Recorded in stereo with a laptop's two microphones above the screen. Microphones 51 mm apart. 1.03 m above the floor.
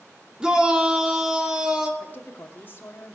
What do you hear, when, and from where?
0.4 s a shout: 15° right (ahead or behind), 2 m
2.0 s a woman speaking: 40° left (ahead or behind), 2.5 m